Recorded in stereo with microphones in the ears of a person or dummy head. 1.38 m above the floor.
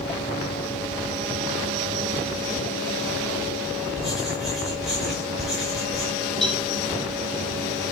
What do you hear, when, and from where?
4.0 s writing: 5° left (ahead or behind), 5.5 m
6.4 s a cowbell: 5° left (ahead or behind), 2 m